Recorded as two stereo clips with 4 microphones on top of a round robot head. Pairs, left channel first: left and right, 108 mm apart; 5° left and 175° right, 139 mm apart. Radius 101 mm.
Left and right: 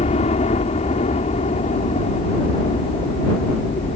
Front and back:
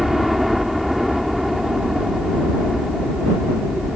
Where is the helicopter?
95° left.